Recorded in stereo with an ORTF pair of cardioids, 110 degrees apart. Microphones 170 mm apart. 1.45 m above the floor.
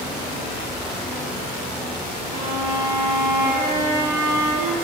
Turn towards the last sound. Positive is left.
turn(degrees=-65)